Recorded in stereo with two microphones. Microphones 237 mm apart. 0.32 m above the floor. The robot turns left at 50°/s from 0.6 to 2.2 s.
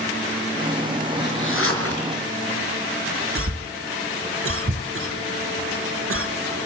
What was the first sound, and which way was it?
A zipper, 135° left.